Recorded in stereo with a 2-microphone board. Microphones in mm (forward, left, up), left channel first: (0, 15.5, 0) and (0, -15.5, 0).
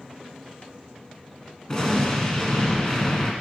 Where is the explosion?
15° left (ahead or behind), 1.2 m.